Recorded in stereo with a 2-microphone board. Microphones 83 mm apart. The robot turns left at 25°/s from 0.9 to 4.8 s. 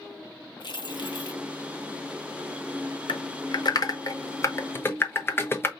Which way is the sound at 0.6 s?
65° left (ahead or behind).